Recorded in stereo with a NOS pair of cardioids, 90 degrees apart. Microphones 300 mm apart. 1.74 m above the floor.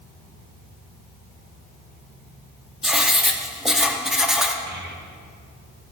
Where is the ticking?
No ticking in this recording.